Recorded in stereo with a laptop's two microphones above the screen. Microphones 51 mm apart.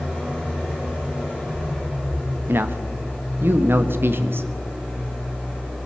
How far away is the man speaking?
About 0.8 m.